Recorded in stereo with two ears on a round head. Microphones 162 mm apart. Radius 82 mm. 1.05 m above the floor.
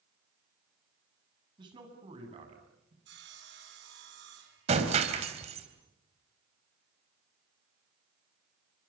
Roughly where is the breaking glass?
Right.